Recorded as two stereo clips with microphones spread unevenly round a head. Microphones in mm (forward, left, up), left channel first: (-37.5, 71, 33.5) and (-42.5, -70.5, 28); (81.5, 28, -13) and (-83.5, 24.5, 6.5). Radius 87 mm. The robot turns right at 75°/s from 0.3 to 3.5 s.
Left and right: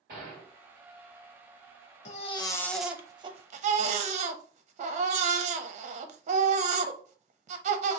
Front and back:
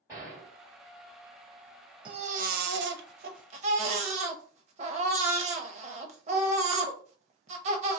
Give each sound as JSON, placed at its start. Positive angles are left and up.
{"t": 0.1, "sound": "a gunshot", "azimuth_deg": -100, "distance_m": 2.5}
{"t": 2.0, "sound": "a baby crying", "azimuth_deg": 120, "distance_m": 0.7}